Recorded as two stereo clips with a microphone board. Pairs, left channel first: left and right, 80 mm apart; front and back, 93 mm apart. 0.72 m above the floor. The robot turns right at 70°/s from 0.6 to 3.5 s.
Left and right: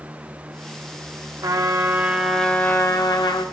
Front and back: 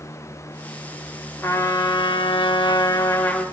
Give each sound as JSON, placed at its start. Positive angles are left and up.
{"t": 1.4, "sound": "a trumpet", "azimuth_deg": -60, "distance_m": 0.6}